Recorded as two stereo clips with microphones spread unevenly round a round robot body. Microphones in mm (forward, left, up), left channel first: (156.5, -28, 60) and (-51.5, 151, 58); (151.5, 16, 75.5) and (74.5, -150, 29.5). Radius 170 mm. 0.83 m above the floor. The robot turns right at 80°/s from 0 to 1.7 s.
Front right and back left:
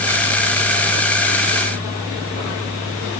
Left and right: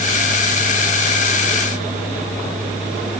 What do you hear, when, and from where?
Only background noise.